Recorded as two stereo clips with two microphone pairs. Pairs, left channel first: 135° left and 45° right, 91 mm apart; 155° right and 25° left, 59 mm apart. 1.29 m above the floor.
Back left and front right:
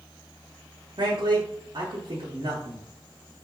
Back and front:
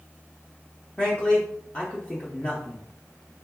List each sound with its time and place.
1.0 s a man speaking: 80° right, 0.7 m